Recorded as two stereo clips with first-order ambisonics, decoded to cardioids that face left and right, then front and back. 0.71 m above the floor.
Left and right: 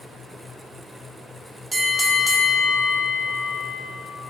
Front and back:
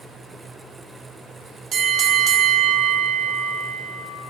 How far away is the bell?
About 1.0 m.